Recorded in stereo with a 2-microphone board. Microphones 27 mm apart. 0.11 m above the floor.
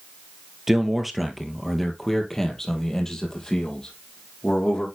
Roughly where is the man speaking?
Centre.